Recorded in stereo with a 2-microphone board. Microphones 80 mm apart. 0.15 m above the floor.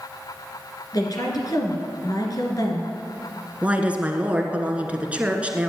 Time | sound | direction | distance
0.9 | a woman speaking | 55° left (ahead or behind) | 2.5 m
3.6 | a woman speaking | 15° right (ahead or behind) | 1.5 m